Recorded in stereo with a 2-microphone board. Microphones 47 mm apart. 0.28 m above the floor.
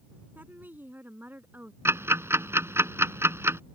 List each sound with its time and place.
0.3 s a woman speaking: 45° right (ahead or behind)
1.9 s ticking: 75° right (ahead or behind)